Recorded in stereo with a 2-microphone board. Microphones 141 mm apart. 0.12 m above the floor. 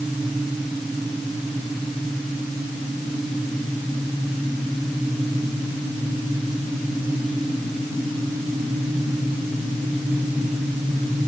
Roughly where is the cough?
I don't hear a cough.